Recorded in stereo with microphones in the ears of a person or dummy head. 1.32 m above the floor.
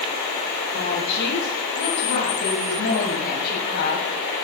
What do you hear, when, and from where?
0.7 s a woman speaking: 65° left (ahead or behind), 9 m; by 4.1 s 55° left (ahead or behind), 8 m